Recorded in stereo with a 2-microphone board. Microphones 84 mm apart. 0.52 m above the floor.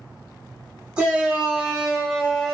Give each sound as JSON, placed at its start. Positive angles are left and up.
{"t": 1.0, "sound": "a shout", "side_deg": -15, "distance_m": 1.5}